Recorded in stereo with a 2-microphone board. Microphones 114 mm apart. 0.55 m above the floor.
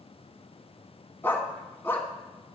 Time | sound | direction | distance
1.2 | a dog barking | 20° left (ahead or behind) | 1.7 m